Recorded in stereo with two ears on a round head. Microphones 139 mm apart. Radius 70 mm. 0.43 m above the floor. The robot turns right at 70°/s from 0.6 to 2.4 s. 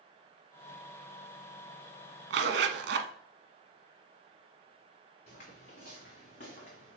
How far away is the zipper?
About 0.9 m.